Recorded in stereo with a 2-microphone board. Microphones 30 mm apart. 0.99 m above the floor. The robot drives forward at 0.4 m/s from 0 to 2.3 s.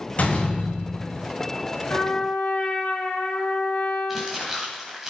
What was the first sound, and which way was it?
A door slam, 50° left (ahead or behind).